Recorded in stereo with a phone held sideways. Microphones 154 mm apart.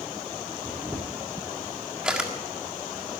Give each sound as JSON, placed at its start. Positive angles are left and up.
{"t": 0.7, "sound": "a camera shutter", "side_deg": -5, "distance_m": 1.6}